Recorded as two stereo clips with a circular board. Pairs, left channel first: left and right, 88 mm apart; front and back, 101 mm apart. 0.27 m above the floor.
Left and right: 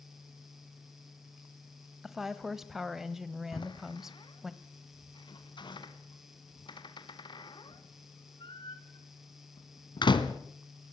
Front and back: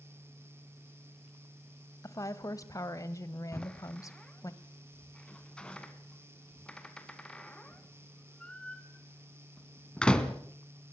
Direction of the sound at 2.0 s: 5° right.